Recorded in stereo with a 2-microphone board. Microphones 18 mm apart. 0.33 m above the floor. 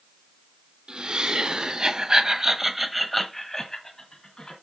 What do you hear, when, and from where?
0.9 s laughter: 70° right (ahead or behind), 2.5 m; by 4.5 s 45° left (ahead or behind), 2.5 m